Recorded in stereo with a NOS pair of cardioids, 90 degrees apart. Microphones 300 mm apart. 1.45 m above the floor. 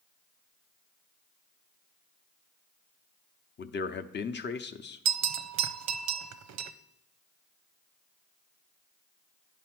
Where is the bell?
65° right, 0.6 m.